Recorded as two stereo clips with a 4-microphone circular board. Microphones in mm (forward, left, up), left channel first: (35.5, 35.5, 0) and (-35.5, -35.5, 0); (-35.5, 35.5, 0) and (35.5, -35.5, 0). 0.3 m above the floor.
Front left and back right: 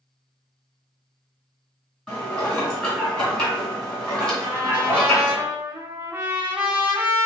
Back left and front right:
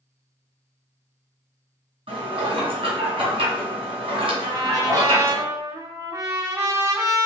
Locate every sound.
2.1 s dishes clattering: 30° right, 1.8 m
4.4 s a trumpet: 75° right, 1.0 m